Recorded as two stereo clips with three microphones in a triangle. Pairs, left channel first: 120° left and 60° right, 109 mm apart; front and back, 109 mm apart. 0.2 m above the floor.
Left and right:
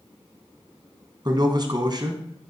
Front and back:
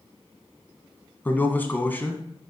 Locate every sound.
1.2 s a man speaking: 65° right, 1.7 m